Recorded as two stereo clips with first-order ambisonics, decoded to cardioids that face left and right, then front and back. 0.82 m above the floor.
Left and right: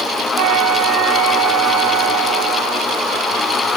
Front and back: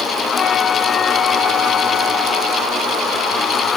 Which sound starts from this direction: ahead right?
A flute, at 0.4 s.